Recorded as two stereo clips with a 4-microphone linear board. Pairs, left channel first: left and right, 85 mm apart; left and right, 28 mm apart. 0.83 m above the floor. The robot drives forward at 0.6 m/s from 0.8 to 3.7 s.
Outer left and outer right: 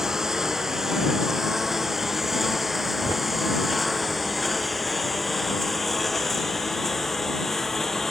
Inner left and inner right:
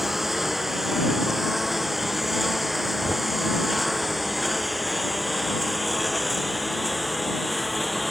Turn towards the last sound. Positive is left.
turn(degrees=5)  # may be behind; listen again after turning